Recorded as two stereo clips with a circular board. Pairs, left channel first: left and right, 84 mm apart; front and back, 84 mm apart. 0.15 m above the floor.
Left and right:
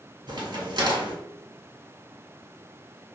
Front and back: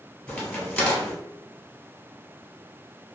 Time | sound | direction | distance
0.3 | a crack | 75° right | 1.5 m